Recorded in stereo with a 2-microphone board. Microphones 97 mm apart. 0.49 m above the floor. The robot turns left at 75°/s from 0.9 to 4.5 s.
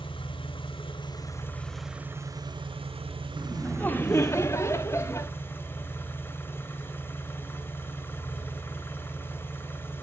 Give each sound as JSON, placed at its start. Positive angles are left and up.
{"t": 0.0, "sound": "an engine running", "azimuth_deg": 65, "distance_m": 1.3}
{"t": 3.4, "sound": "laughter", "side_deg": 5, "distance_m": 0.7}